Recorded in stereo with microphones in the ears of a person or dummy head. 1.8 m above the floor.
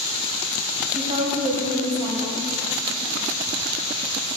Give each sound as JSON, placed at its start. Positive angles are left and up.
{"t": 0.9, "sound": "a woman speaking", "side_deg": -30, "distance_m": 0.9}